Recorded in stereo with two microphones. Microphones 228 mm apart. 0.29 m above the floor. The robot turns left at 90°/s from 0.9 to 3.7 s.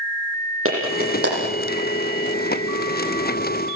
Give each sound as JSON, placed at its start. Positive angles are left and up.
{"t": 0.7, "sound": "a clap", "side_deg": -70, "distance_m": 9.5}